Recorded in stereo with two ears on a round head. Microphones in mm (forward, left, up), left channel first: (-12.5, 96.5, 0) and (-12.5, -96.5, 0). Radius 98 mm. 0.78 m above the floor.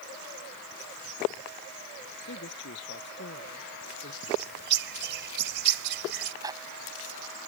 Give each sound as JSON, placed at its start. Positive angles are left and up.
{"t": 2.2, "sound": "a man speaking", "side_deg": 60}
{"t": 4.2, "sound": "a bird", "side_deg": -55}
{"t": 6.4, "sound": "a zipper", "side_deg": -15}